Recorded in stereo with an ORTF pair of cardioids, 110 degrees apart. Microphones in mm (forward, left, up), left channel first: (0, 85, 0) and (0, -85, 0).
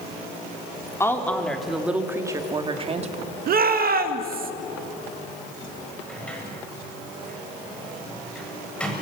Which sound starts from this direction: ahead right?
A shout, at 3.5 s.